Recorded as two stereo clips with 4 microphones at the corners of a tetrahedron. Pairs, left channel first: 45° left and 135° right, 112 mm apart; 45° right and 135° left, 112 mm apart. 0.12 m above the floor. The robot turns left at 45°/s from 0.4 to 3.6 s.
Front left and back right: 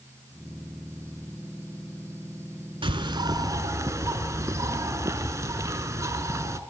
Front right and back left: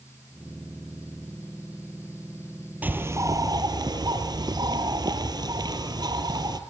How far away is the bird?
About 0.8 m.